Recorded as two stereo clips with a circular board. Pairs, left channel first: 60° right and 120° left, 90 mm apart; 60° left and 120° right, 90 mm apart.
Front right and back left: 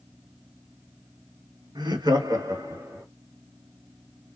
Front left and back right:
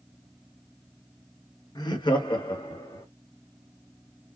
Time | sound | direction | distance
1.8 | laughter | 90° left | 1.4 m